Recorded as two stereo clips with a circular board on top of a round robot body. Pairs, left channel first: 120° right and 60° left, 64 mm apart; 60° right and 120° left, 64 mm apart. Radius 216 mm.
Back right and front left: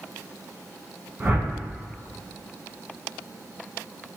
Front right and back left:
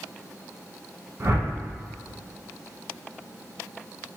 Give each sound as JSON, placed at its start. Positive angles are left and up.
{"t": 1.2, "sound": "a whoosh", "azimuth_deg": 110, "distance_m": 1.4}